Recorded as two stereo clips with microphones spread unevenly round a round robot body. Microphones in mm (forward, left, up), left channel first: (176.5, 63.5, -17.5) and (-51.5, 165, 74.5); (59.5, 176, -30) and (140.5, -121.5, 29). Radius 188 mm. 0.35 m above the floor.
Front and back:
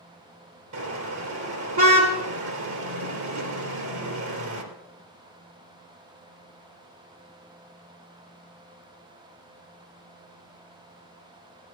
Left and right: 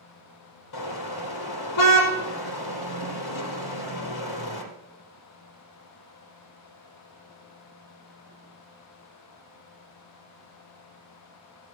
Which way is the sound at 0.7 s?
145° left.